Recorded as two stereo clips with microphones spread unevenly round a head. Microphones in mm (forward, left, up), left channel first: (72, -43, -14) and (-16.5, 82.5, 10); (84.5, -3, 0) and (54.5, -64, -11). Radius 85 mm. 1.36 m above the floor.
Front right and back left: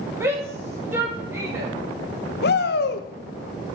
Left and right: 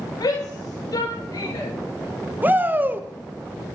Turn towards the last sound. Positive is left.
turn(degrees=-60)